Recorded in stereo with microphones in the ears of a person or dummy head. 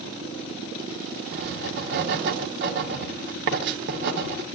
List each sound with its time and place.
1.3 s writing: 60° right (ahead or behind), 1.1 m